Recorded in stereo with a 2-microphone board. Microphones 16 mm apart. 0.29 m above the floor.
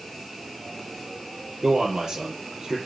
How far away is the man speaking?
About 5.5 m.